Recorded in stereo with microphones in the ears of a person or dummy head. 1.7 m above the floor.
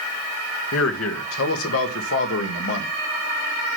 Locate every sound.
0.7 s a man speaking: 70° left (ahead or behind), 1.7 m; by 2.9 s 65° left (ahead or behind), 2.5 m